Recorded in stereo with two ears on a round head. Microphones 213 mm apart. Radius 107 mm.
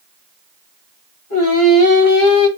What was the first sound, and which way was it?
Singing, 70° left (ahead or behind).